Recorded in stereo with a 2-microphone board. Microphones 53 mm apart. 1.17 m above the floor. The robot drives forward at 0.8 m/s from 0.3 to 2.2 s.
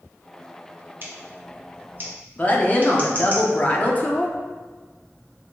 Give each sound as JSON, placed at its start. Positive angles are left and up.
{"t": 1.0, "sound": "scissors", "side_deg": -45, "distance_m": 0.9}
{"t": 2.4, "sound": "a woman speaking", "side_deg": 30, "distance_m": 0.7}